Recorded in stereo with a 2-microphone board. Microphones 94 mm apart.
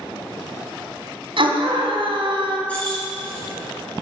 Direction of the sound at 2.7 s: 15° left (ahead or behind).